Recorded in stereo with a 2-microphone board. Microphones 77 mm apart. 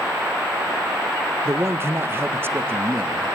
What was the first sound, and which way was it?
A man speaking, 35° right (ahead or behind).